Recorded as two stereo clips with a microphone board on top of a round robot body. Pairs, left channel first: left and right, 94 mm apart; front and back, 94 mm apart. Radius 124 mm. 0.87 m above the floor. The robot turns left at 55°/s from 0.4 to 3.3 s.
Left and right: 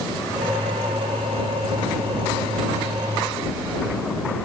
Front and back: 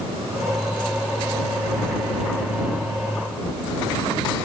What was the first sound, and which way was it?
Only background noise.